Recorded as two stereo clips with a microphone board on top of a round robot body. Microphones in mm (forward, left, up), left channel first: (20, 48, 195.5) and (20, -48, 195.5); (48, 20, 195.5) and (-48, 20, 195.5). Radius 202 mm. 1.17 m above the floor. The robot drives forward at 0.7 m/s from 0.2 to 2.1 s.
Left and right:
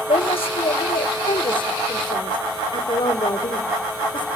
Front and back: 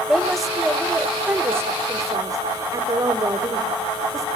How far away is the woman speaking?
About 1.8 m.